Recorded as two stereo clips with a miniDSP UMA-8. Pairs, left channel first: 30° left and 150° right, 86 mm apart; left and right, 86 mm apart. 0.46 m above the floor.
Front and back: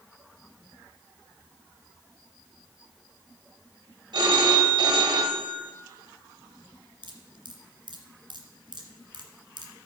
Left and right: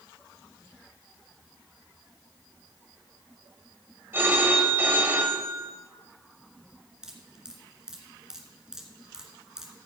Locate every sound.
4.1 s a phone ringing: 150° right, 1.6 m
7.0 s dripping: 175° right, 1.8 m